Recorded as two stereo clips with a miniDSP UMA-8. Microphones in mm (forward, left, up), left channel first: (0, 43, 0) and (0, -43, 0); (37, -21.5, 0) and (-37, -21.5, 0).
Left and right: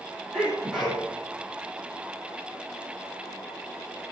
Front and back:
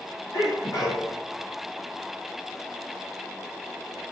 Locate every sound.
0.3 s a sneeze: straight ahead, 5.5 m